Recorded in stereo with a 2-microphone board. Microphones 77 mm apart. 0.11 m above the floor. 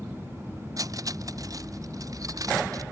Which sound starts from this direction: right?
Cutlery clinking, at 0.8 s.